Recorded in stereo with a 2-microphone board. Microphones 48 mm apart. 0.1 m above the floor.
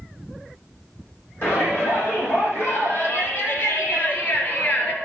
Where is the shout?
50° left (ahead or behind), 6 m; by 5.0 s 30° left (ahead or behind), 1.9 m.